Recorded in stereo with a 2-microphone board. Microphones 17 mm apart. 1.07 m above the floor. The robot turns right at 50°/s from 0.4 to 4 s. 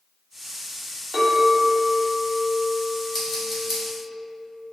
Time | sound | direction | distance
1.1 | a clink | 25° right | 1.0 m
3.1 | scissors | 10° left (ahead or behind) | 1.1 m